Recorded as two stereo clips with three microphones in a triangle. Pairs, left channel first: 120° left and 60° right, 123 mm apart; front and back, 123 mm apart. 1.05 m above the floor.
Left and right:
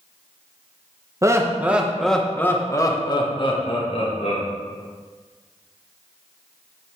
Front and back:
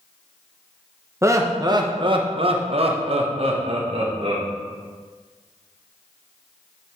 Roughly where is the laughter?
Behind right.